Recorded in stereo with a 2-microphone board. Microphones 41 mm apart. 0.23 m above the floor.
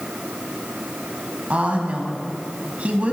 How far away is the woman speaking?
About 1.5 m.